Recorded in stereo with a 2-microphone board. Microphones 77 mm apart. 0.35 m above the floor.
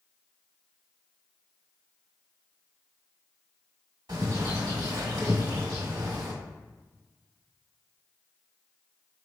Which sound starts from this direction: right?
A bird, at 4.1 s.